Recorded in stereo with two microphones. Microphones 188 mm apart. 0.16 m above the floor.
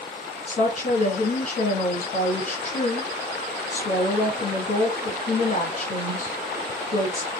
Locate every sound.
0.5 s a woman speaking: 40° left (ahead or behind), 1.8 m